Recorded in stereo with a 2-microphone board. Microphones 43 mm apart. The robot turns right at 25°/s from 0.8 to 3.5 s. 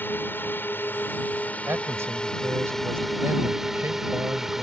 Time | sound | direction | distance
0.0 | a drone | 120° left | ?
1.7 | a man speaking | 105° right | ?